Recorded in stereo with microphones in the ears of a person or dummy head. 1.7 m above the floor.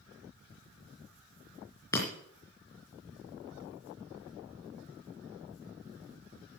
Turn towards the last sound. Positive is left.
turn(degrees=10)  # may be behind; listen again after turning